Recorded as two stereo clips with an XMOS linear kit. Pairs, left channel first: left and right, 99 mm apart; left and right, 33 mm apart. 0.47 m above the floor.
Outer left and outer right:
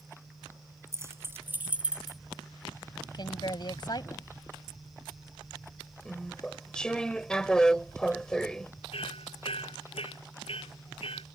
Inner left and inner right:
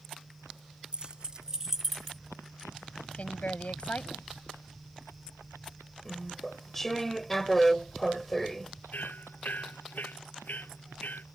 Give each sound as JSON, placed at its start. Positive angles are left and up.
{"t": 0.9, "sound": "keys jangling", "side_deg": -30}
{"t": 3.1, "sound": "a woman speaking", "side_deg": 50}
{"t": 6.0, "sound": "chewing", "side_deg": 10}
{"t": 8.9, "sound": "hammering", "side_deg": 75}